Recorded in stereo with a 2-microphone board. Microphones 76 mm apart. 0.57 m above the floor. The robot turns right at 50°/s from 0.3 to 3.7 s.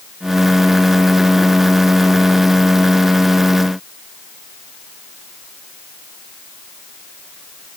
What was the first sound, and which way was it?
Only background noise.